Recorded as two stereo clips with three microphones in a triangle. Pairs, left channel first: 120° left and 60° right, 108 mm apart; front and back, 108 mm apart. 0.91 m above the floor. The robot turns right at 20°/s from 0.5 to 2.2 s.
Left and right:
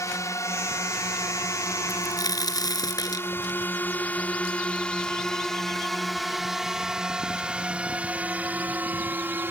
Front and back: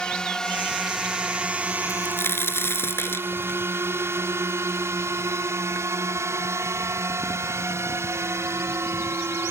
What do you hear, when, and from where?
0.0 s a drone: 80° left; by 9.5 s 125° right
1.9 s a crack: 60° left; by 5.9 s 70° left